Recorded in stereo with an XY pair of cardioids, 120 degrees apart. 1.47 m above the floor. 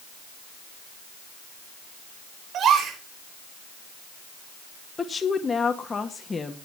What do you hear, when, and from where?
2.5 s a gasp: 55° right, 5 m
5.0 s a woman speaking: 25° left, 1.5 m